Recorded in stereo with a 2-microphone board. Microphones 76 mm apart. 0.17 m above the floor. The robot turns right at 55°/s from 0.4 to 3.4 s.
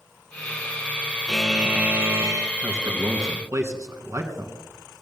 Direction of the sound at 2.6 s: 40° right (ahead or behind).